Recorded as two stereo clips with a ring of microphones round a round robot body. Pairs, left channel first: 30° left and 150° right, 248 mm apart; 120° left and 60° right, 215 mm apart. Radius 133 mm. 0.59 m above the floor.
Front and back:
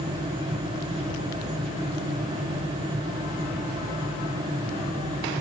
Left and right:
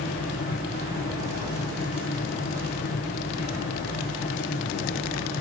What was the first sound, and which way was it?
Only background noise.